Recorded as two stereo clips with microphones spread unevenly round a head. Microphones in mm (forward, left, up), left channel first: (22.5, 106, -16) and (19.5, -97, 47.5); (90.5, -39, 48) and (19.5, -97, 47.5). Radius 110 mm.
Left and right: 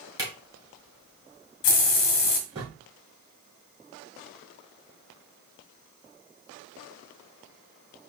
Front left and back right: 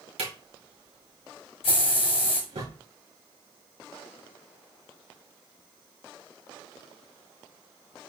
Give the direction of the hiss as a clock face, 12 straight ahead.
10 o'clock.